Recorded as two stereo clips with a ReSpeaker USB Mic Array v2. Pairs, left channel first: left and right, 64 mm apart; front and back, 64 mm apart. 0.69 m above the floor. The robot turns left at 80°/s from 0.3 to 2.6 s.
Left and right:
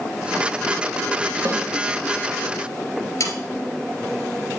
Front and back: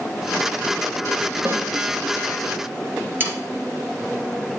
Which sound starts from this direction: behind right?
A snare drum, at 1.4 s.